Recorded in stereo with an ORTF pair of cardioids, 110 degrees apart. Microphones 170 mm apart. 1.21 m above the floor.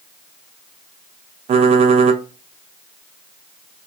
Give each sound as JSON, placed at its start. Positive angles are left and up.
{"t": 1.5, "sound": "typing on a keyboard", "azimuth_deg": -40, "distance_m": 0.5}